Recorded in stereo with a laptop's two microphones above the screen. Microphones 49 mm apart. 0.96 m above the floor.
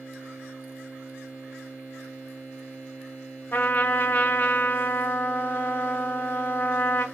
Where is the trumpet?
40° left (ahead or behind), 0.7 m.